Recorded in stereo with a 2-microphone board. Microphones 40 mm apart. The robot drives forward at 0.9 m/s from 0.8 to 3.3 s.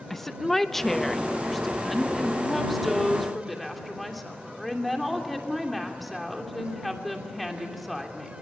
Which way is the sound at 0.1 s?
5° left (ahead or behind).